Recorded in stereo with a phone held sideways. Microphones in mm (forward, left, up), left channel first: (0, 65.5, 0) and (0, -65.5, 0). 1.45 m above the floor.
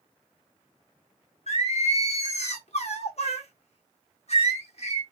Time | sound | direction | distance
1.5 | singing | 55° left (ahead or behind) | 0.7 m